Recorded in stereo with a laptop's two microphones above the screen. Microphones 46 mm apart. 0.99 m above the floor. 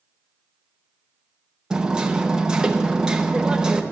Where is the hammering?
15° right (ahead or behind), 0.6 m.